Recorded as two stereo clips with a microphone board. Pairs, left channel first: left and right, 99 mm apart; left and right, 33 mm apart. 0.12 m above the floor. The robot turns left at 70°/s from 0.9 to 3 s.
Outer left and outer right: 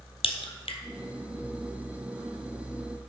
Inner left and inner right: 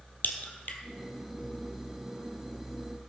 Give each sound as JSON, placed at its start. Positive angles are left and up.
{"t": 0.2, "sound": "a crack", "side_deg": 70, "distance_m": 1.5}